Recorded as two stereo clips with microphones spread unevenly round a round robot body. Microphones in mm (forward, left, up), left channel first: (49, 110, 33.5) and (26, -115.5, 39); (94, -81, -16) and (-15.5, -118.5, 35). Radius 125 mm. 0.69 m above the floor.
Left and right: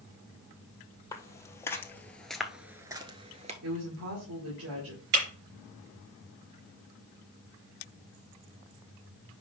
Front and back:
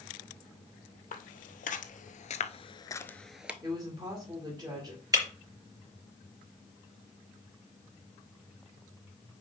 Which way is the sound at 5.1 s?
105° right.